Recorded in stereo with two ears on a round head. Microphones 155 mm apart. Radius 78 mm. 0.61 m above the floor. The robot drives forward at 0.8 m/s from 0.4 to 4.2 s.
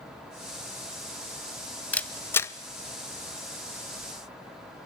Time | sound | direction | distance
1.9 | a camera shutter | 10° left (ahead or behind) | 0.9 m